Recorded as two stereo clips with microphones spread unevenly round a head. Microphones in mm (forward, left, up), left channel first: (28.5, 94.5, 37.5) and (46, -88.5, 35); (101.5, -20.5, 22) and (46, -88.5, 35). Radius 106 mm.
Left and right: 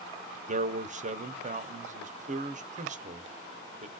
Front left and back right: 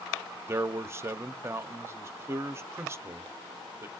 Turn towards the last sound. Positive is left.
turn(degrees=-70)